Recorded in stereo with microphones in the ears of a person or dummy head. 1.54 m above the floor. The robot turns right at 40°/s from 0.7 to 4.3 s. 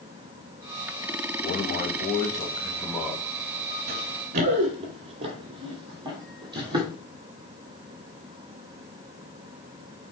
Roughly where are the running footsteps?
Right.